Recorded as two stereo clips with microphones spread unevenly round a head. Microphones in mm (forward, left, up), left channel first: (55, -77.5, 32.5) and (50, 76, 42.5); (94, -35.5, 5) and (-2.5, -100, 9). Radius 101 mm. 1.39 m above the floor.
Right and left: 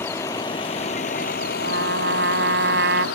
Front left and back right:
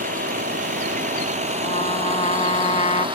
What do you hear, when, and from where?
0.0 s a vehicle: 165° right; by 3.2 s 100° right
1.6 s a trumpet: 95° left